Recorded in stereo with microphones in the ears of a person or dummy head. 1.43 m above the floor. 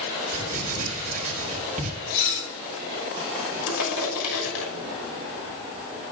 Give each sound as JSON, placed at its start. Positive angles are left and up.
{"t": 0.3, "sound": "writing", "side_deg": -50, "distance_m": 5.0}
{"t": 2.1, "sound": "dishes clattering", "side_deg": 50, "distance_m": 6.0}
{"t": 3.7, "sound": "crushing", "side_deg": 85, "distance_m": 6.0}